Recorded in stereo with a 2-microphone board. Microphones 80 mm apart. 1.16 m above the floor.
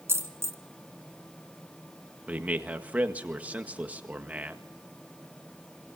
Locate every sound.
0.1 s a dropped coin: 35° right (ahead or behind), 2 m
2.3 s a man speaking: 20° right (ahead or behind), 1.7 m